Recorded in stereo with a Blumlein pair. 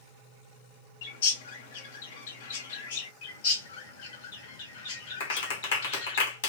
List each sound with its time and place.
1.0 s a bird: 60° left, 0.9 m
3.2 s a bird: 50° left, 2.5 m
5.2 s a clap: 60° left, 1.7 m